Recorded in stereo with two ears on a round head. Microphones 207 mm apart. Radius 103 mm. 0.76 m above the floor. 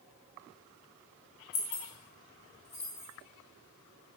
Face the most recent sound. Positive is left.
turn(degrees=85)